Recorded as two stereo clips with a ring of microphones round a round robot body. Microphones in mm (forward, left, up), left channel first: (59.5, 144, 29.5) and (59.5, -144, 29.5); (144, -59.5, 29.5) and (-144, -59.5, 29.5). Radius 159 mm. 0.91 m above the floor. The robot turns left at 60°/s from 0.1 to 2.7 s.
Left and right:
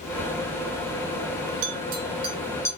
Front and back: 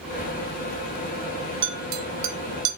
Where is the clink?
125° right, 0.8 m; by 2.7 s 170° left, 0.8 m.